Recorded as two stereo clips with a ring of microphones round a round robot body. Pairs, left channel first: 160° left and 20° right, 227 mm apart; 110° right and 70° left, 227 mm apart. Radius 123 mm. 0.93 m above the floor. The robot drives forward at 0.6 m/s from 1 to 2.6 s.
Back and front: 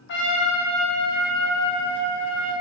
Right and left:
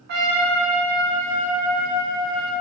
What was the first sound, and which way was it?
A trumpet, 115° left.